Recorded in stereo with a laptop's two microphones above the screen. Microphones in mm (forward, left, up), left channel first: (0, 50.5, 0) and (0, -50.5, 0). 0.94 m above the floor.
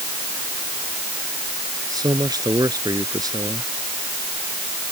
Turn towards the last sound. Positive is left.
turn(degrees=-40)  # may be behind; listen again after turning